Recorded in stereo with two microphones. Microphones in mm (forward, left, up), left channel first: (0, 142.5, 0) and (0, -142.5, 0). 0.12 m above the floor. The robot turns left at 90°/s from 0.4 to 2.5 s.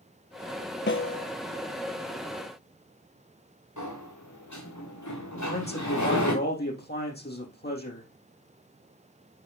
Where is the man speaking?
35° left (ahead or behind), 4.5 m.